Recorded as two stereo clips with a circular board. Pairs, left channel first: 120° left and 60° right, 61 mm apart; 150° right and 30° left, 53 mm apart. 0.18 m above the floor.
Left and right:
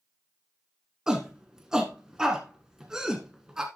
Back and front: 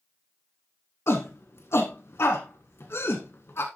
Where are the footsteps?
I don't hear footsteps.